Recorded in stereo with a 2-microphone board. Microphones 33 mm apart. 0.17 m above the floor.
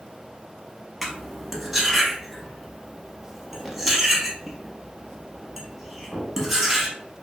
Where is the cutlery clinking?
5° right (ahead or behind), 0.7 m.